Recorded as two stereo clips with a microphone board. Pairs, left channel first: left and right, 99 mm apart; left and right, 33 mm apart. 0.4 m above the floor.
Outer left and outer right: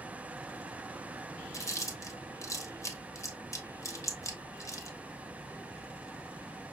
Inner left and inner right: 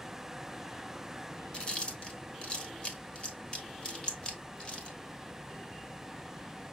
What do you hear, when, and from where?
1.5 s chewing: 30° left (ahead or behind), 1.2 m